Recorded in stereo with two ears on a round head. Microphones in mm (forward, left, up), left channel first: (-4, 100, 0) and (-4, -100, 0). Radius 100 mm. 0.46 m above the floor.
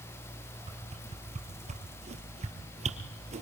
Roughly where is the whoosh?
Right.